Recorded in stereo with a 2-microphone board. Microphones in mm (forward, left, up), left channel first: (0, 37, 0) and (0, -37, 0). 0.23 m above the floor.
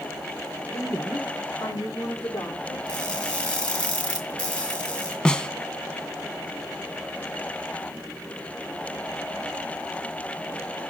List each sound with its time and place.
0.7 s a woman speaking: 30° left (ahead or behind), 7.5 m; by 2.8 s 45° left (ahead or behind), 8 m
2.9 s crushing: 15° left (ahead or behind), 2.5 m
5.2 s a snare drum: 10° left (ahead or behind), 0.6 m